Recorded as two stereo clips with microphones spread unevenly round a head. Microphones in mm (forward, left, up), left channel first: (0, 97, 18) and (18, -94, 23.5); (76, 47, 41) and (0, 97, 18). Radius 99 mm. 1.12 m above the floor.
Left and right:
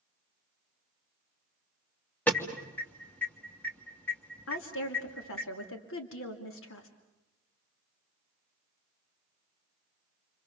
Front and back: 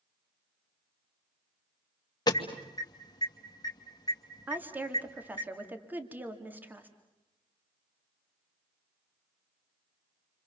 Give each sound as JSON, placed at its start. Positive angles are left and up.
{"t": 2.3, "sound": "an alarm", "azimuth_deg": 15, "distance_m": 2.5}
{"t": 4.5, "sound": "a woman speaking", "azimuth_deg": 80, "distance_m": 2.5}